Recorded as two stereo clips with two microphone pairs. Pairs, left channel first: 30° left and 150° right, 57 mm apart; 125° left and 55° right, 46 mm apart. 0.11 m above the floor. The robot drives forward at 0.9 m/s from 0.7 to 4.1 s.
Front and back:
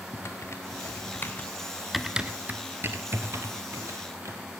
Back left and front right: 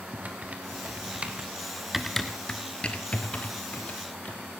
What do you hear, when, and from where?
0.1 s typing on a keyboard: straight ahead, 1.3 m; by 4.4 s straight behind, 2 m